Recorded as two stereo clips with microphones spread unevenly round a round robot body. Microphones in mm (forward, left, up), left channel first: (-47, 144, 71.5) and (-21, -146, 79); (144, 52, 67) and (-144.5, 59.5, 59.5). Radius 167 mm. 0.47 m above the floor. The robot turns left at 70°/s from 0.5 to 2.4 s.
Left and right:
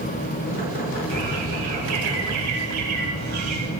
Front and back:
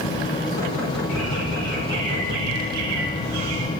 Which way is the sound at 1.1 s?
45° right.